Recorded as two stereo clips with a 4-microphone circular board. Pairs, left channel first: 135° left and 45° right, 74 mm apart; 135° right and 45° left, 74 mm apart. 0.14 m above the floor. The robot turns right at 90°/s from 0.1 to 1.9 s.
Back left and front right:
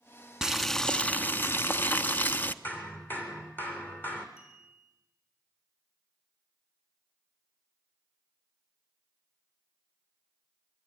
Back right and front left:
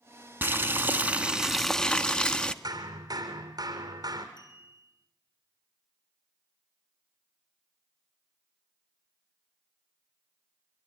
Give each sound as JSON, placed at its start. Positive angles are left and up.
{"t": 0.4, "sound": "boiling", "azimuth_deg": 25, "distance_m": 1.0}
{"t": 2.6, "sound": "hammering", "azimuth_deg": 70, "distance_m": 3.0}
{"t": 4.4, "sound": "a clink", "azimuth_deg": -130, "distance_m": 6.0}